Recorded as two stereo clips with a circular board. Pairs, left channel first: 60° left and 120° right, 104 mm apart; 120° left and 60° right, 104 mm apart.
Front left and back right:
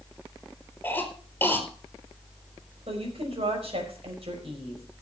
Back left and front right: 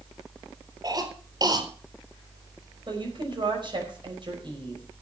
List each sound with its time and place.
0.8 s a cough: 10° right, 4.5 m
2.9 s a woman speaking: 100° right, 5 m